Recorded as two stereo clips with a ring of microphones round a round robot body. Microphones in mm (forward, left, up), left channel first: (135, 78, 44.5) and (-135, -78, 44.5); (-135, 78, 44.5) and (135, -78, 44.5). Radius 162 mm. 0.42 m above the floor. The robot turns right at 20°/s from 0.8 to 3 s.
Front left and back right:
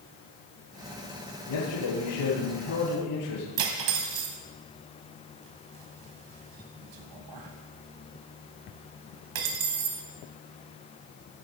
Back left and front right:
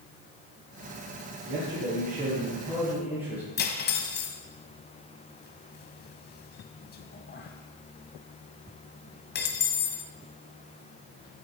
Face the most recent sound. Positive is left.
turn(degrees=-150)